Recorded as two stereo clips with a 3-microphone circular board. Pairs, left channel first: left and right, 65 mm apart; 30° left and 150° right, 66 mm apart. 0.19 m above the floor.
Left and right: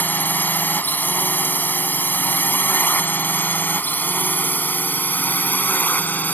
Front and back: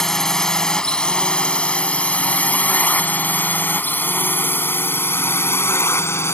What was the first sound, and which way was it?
A drone, 105° left.